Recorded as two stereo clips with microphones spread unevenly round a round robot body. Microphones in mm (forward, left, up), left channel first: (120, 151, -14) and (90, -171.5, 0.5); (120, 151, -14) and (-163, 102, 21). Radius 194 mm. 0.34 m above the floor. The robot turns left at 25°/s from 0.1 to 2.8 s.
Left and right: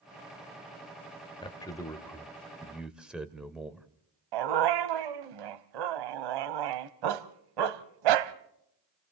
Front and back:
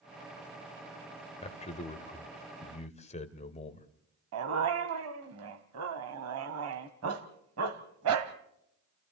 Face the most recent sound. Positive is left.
turn(degrees=-115)